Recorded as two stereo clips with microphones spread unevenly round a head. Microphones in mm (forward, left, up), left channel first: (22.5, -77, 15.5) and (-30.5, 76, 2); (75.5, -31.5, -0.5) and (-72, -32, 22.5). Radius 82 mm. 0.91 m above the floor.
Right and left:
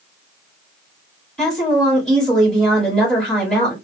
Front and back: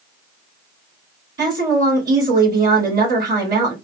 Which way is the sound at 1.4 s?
160° right.